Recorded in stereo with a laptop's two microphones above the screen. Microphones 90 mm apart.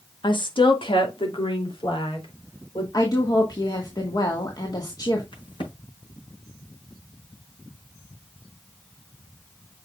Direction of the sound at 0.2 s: 60° left (ahead or behind).